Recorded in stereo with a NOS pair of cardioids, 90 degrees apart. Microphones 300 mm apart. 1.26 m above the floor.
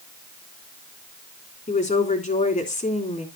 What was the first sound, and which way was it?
A woman speaking, 25° left.